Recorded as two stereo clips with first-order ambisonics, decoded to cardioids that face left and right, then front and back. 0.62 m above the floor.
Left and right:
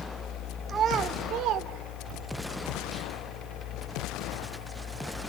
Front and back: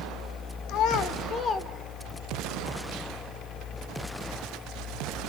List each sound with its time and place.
0.7 s a child speaking: 25° right, 1.4 m; by 2.4 s 85° right, 1.9 m